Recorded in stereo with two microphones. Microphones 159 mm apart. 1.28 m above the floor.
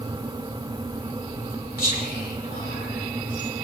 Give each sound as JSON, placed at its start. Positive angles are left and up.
{"t": 1.8, "sound": "whispering", "side_deg": 80, "distance_m": 7.5}